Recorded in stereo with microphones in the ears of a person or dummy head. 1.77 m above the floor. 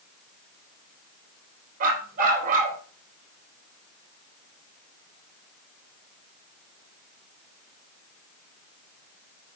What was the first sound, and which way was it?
A dog barking, 50° right (ahead or behind).